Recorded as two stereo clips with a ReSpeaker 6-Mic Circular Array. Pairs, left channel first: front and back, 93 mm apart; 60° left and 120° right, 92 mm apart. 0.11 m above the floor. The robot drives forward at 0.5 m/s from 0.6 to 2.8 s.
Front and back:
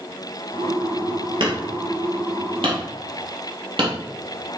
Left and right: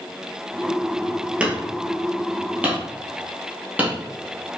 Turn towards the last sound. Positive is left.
turn(degrees=170)